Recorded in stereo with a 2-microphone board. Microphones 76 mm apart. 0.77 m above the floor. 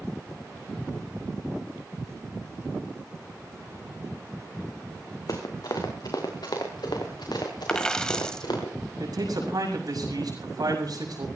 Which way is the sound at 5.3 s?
60° left (ahead or behind).